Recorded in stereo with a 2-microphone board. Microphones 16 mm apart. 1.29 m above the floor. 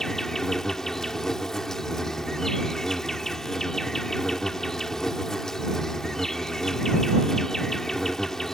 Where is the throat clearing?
No throat clearing in this recording.